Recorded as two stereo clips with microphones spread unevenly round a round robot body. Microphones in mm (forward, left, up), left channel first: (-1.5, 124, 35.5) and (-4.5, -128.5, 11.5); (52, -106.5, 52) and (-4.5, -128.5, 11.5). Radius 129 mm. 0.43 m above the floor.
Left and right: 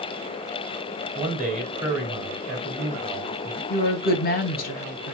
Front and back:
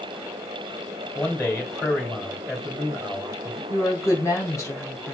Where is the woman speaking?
90° left, 1.0 m.